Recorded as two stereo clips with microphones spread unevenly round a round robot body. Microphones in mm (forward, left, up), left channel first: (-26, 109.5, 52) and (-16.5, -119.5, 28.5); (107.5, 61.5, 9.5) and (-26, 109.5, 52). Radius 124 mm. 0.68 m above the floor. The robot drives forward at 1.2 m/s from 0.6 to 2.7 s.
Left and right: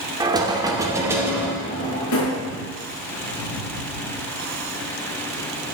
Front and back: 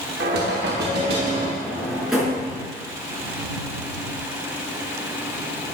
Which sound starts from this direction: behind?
Knocking, at 0.2 s.